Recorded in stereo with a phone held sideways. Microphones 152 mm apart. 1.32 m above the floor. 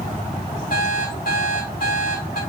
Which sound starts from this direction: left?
An alarm clock, at 0.7 s.